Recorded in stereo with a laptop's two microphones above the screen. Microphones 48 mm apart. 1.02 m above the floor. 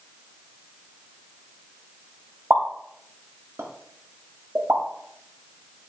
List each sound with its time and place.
2.5 s a pop: 55° right (ahead or behind), 0.9 m